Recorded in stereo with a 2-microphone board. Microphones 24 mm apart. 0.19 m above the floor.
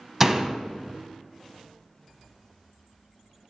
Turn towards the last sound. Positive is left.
turn(degrees=-20)  # may be behind; listen again after turning